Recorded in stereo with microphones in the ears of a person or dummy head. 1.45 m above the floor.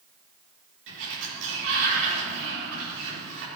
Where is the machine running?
No machine running in this recording.